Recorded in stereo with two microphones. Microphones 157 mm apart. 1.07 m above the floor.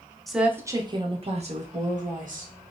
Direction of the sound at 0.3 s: Centre (ahead or behind).